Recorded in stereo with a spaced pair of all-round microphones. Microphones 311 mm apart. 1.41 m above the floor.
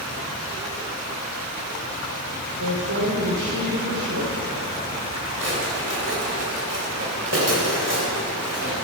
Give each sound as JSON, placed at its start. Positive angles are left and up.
{"t": 2.6, "sound": "a woman speaking", "side_deg": -80, "distance_m": 6.0}
{"t": 5.4, "sound": "a drawer", "side_deg": -45, "distance_m": 3.0}